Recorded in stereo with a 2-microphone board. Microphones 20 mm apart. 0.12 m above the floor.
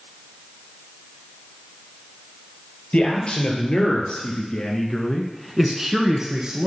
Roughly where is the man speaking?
Left.